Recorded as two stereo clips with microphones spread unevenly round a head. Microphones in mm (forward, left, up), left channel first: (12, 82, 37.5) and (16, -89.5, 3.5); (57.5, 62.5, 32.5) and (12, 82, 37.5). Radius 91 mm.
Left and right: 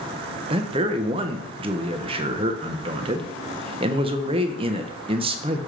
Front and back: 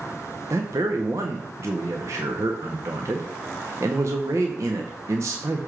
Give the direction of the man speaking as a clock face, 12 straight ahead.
5 o'clock.